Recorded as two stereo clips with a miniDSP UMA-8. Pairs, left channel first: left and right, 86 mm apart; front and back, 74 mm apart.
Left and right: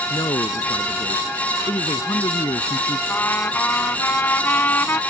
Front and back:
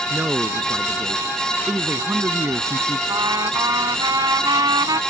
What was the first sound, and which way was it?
A man speaking, 115° left.